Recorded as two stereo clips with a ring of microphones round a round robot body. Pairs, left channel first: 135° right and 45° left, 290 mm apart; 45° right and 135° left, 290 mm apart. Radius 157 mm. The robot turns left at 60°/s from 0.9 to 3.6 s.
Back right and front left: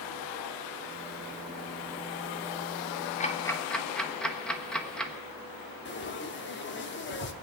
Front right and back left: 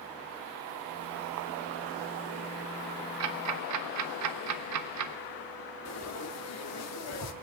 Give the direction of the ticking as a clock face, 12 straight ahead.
7 o'clock.